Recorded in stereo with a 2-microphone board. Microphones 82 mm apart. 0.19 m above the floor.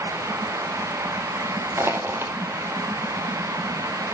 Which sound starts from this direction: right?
Crushing, at 1.8 s.